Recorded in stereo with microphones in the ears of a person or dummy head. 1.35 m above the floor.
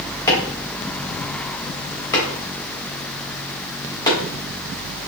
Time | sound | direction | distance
0.3 | chopping | 25° left (ahead or behind) | 1.5 m